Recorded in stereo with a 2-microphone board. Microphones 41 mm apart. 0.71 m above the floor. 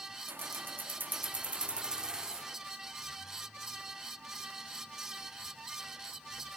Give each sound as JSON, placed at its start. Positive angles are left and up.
{"t": 0.3, "sound": "keys jangling", "side_deg": -60, "distance_m": 0.9}